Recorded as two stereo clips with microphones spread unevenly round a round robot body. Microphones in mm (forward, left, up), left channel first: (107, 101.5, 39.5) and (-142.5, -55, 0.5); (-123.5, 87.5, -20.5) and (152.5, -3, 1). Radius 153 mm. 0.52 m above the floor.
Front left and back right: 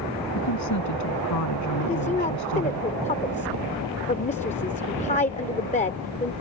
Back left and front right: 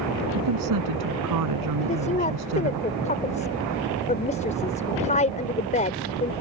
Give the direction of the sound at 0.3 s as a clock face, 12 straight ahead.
12 o'clock.